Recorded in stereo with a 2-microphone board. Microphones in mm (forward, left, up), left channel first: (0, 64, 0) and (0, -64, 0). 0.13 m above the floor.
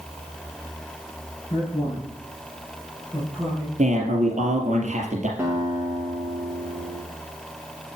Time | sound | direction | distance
1.5 | a man speaking | 25° left (ahead or behind) | 5.5 m
3.8 | a man speaking | 60° right (ahead or behind) | 4 m
5.4 | a guitar | 15° right (ahead or behind) | 3.5 m